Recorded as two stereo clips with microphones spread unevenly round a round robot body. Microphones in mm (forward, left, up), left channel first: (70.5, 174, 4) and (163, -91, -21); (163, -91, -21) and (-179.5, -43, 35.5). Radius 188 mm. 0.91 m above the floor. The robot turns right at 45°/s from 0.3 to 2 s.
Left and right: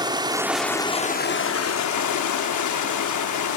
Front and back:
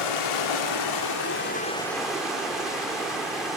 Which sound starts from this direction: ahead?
Running water, at 0.0 s.